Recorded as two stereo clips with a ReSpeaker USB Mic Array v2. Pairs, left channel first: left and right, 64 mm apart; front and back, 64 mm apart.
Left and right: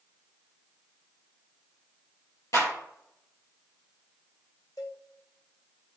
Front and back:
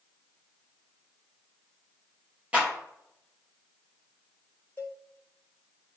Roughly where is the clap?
Behind left.